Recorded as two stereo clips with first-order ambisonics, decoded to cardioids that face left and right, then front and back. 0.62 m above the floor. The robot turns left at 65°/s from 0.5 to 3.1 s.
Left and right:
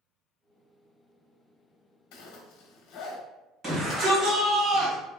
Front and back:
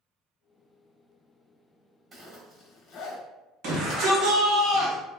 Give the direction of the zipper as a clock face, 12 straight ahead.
8 o'clock.